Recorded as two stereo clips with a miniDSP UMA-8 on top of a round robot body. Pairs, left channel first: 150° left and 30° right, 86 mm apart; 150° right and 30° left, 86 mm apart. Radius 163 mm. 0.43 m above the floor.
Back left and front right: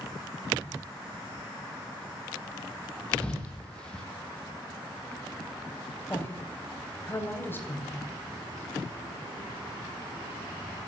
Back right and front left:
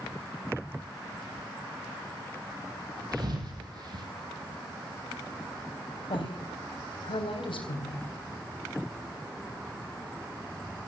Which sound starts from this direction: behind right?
A woman speaking, at 6.1 s.